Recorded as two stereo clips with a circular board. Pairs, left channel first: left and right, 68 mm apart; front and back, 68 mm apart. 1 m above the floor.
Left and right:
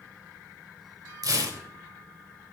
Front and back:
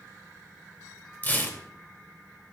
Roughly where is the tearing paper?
Ahead right.